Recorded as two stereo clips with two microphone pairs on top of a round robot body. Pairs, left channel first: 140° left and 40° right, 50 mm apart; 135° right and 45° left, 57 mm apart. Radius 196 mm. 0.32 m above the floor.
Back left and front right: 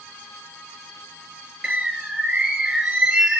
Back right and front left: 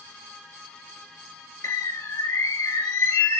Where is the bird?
115° right, 2.5 m.